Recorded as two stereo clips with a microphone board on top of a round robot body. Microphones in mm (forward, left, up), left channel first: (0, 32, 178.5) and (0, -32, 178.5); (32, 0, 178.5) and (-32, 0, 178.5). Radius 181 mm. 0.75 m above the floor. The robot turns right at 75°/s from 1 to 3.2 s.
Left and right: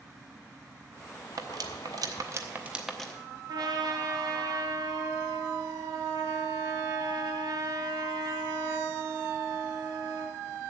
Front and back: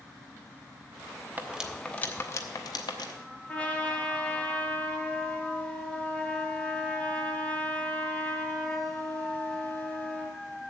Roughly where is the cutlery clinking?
Behind right.